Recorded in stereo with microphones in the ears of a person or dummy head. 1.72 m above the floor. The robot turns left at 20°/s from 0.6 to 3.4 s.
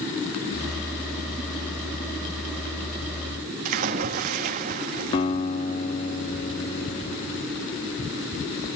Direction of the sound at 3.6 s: 45° right (ahead or behind).